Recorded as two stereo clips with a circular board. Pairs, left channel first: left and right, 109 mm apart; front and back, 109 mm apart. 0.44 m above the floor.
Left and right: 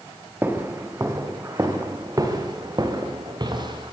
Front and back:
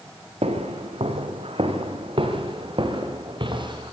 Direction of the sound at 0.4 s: 160° right.